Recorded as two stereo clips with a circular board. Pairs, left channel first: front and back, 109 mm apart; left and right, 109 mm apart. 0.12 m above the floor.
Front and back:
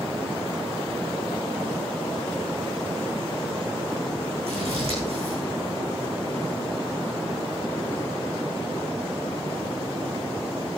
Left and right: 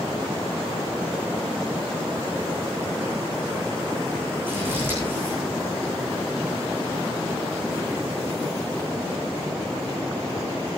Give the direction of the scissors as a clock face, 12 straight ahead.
5 o'clock.